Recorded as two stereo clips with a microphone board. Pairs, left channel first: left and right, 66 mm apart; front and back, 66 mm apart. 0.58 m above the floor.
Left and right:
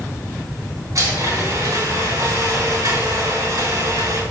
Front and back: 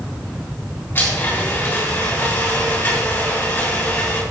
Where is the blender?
60° right, 4 m.